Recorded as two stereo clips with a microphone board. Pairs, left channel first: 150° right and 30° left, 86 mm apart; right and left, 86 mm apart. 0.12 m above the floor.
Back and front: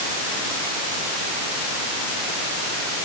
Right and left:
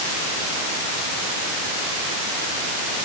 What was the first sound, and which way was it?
Only background noise.